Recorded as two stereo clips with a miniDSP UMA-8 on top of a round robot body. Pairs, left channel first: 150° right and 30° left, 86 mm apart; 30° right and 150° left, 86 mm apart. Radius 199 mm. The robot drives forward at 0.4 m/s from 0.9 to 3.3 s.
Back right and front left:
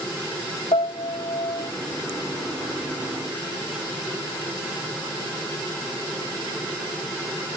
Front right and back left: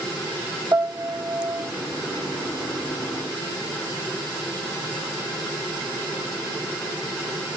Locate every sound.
0.7 s a piano: 145° right; by 1.7 s 150° right